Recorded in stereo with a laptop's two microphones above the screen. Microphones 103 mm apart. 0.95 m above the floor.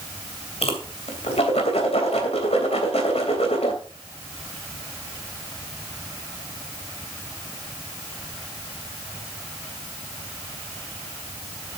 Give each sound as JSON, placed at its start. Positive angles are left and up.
{"t": 0.6, "sound": "a whoosh", "side_deg": 80, "distance_m": 3.0}